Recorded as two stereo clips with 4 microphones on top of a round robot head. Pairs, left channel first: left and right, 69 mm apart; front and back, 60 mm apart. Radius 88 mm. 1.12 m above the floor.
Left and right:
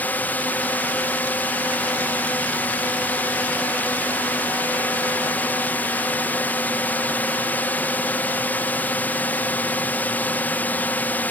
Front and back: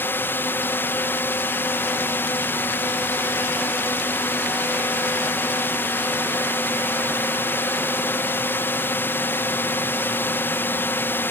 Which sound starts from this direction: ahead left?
A drone, at 0.0 s.